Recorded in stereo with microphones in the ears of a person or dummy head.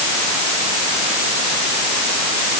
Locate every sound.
Only background noise.